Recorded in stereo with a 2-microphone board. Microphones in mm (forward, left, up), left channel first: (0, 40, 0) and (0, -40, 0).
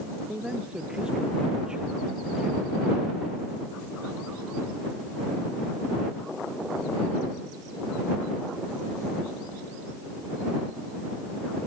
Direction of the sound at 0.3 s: 10° right (ahead or behind).